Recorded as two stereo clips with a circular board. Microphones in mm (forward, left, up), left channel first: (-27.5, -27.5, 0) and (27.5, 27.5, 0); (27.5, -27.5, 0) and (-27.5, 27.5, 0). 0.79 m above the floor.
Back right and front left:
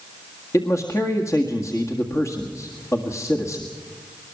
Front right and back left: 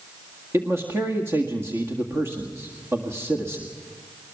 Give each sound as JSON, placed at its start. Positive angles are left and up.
{"t": 0.5, "sound": "a man speaking", "azimuth_deg": -175, "distance_m": 1.7}